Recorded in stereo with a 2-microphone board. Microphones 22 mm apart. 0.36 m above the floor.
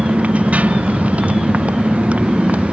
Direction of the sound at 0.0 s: 90° right.